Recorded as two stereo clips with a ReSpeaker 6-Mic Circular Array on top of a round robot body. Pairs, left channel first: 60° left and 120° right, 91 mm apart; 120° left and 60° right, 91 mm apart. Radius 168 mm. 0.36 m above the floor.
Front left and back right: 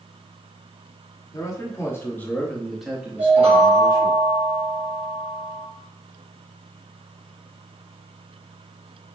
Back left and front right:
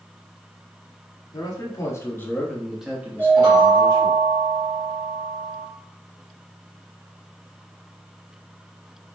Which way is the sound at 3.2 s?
110° right.